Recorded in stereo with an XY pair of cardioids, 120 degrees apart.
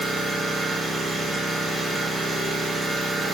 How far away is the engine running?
About 1.2 m.